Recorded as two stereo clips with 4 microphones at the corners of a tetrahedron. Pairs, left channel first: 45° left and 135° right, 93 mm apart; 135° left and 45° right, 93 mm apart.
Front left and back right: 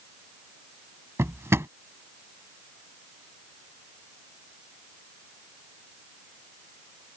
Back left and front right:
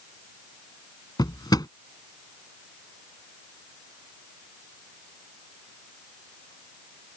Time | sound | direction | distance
1.2 | a drawer | 170° left | ?